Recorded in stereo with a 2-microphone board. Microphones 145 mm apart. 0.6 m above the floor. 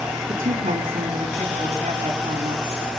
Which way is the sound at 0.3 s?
70° right (ahead or behind).